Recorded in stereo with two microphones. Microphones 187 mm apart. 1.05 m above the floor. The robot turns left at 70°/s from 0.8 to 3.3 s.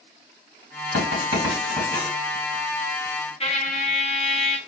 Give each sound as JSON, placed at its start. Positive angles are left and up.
{"t": 0.9, "sound": "writing", "side_deg": -60, "distance_m": 3.5}
{"t": 3.4, "sound": "a trumpet", "side_deg": 30, "distance_m": 0.7}